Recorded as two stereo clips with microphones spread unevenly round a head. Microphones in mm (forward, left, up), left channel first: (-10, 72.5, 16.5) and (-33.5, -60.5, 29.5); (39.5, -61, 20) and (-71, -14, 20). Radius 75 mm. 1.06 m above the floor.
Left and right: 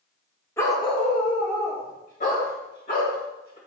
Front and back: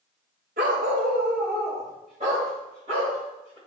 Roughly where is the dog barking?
Behind left.